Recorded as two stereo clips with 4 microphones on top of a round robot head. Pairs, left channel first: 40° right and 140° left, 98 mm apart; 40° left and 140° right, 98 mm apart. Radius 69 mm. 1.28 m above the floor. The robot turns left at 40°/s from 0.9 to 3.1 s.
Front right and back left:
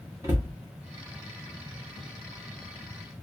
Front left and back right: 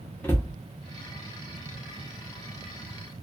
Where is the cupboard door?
100° left, 0.7 m.